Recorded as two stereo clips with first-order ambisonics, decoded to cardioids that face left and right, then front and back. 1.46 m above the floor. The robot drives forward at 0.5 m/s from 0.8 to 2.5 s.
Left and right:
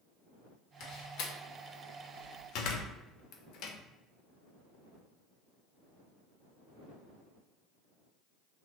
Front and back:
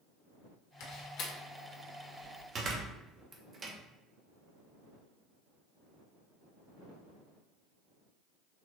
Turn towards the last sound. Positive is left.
turn(degrees=120)